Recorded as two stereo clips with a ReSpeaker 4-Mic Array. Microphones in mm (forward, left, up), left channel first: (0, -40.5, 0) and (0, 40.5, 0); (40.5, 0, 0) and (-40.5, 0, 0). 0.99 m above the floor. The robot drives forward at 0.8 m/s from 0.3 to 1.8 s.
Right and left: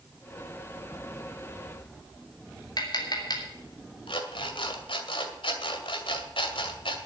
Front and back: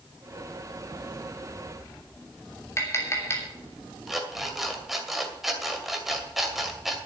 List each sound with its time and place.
2.8 s tapping: 60° right, 3 m
4.1 s an alarm clock: 90° right, 2 m